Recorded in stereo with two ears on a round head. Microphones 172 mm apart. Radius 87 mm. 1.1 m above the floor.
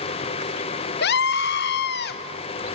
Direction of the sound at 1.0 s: 60° left (ahead or behind).